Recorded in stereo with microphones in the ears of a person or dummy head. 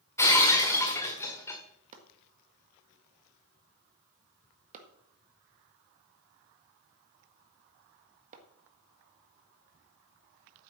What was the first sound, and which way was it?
Breaking glass, 15° left (ahead or behind).